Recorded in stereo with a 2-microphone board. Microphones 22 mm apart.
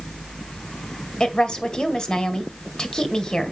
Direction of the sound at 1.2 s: 30° left (ahead or behind).